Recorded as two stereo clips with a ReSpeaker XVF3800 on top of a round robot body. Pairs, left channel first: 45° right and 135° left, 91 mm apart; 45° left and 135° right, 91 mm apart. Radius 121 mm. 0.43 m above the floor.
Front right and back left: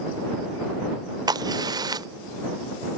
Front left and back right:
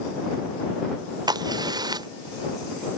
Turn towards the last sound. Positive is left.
turn(degrees=180)